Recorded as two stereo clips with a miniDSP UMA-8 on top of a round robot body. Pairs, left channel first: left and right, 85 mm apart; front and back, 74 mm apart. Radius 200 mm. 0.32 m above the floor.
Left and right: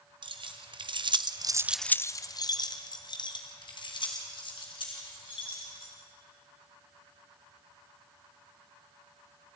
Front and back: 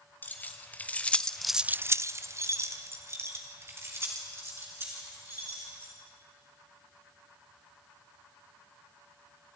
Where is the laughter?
I don't hear laughter.